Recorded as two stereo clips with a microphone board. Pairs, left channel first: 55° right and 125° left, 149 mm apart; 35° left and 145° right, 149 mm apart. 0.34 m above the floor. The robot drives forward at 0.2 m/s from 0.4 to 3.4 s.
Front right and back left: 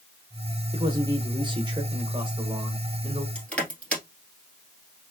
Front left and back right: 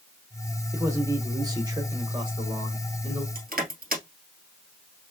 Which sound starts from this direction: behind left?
A man speaking, at 0.7 s.